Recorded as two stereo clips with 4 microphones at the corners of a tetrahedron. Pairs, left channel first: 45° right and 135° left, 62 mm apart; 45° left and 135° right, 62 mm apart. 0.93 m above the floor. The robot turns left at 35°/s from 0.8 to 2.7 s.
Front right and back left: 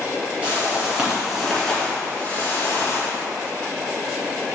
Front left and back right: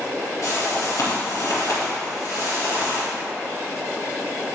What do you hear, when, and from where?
0.4 s a whoosh: 65° left, 2 m; by 3.1 s straight ahead, 2 m